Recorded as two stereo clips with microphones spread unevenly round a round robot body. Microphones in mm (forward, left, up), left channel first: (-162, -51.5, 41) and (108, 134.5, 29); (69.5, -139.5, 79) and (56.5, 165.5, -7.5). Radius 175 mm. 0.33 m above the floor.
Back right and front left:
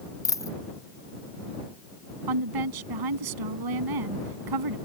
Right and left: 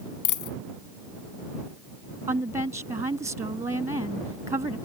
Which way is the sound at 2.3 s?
15° left.